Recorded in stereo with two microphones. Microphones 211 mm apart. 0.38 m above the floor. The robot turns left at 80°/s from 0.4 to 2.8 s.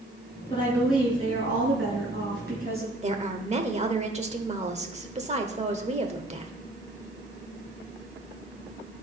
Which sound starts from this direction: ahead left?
A woman speaking, at 0.5 s.